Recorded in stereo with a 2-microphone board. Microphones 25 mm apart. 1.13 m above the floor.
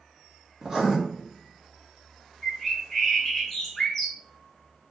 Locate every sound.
0.6 s writing: 15° right (ahead or behind), 2.5 m
2.4 s a bird: 10° left (ahead or behind), 3.5 m